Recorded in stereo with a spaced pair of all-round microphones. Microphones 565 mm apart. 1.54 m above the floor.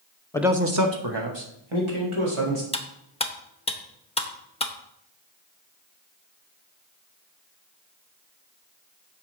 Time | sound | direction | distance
0.3 | a man speaking | 5° left (ahead or behind) | 0.8 m
2.7 | cutlery clinking | 10° left (ahead or behind) | 0.8 m